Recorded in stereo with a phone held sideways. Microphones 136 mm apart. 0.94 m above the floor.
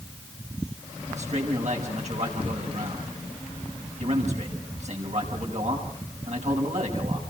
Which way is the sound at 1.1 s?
55° right (ahead or behind).